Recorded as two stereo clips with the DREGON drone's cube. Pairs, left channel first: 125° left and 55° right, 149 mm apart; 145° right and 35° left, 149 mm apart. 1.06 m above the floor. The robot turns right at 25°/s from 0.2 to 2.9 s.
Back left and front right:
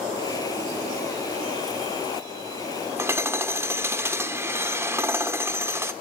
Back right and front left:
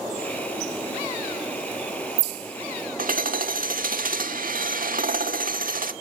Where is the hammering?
15° left, 1.5 m.